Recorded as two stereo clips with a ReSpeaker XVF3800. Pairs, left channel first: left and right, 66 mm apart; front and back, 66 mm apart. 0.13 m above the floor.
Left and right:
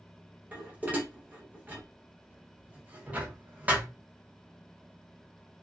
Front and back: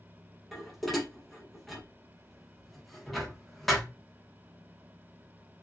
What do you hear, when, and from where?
0.5 s dishes clattering: 90° right, 0.7 m